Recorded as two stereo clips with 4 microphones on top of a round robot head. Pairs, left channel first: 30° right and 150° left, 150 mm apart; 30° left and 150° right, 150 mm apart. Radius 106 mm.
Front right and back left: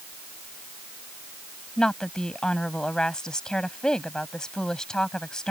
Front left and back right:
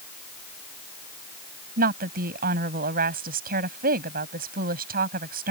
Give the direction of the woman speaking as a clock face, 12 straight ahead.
4 o'clock.